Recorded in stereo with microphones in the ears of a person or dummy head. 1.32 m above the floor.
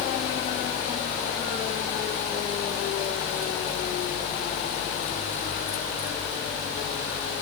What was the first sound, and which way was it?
Only background noise.